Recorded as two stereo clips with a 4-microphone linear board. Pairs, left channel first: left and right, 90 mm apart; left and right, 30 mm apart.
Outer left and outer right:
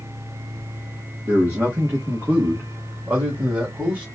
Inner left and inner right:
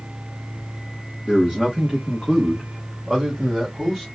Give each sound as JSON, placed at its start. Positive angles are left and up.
{"t": 1.2, "sound": "a man speaking", "side_deg": -30, "distance_m": 1.3}